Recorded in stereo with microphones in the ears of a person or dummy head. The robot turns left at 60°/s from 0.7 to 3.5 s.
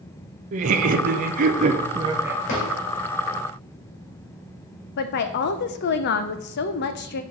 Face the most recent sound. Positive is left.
turn(degrees=50)  # may be behind; listen again after turning